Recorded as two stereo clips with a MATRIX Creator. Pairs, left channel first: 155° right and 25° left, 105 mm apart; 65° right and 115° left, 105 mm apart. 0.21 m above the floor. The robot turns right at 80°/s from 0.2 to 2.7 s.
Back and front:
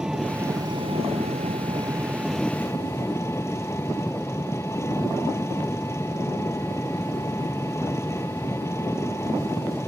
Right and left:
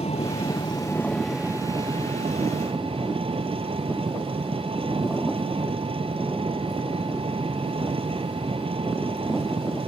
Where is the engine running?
60° right; by 9.9 s 140° left.